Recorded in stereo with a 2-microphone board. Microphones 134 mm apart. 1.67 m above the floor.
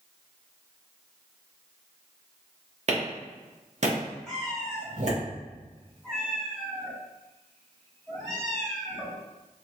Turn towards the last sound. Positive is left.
turn(degrees=5)  # may be behind; listen again after turning